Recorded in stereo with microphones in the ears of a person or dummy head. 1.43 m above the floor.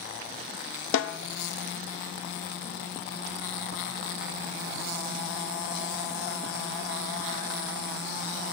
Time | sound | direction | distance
0.9 | a snare drum | 75° left (ahead or behind) | 0.5 m